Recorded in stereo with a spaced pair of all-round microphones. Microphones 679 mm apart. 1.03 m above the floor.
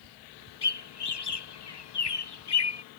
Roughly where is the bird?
Left.